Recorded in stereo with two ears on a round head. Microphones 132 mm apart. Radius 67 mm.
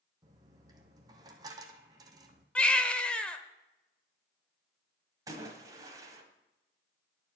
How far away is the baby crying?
About 0.8 m.